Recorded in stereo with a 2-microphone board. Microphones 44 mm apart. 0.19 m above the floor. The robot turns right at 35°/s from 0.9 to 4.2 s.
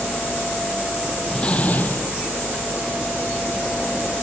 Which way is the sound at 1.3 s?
20° left (ahead or behind).